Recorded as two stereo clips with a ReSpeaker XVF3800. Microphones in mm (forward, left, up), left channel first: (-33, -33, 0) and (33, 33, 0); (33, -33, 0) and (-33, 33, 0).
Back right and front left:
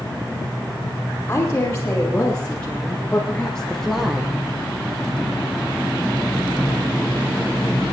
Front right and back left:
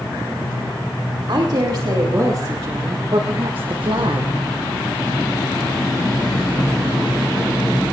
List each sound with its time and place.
1.3 s a woman speaking: 155° left, 3.5 m; by 4.3 s 125° left, 0.9 m